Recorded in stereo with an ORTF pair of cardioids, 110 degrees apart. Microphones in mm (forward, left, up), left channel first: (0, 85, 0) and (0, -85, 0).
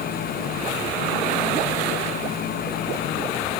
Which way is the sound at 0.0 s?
65° left.